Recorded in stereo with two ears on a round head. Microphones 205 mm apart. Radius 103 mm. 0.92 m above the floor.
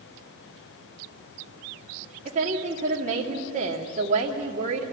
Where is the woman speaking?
35° right (ahead or behind), 2 m.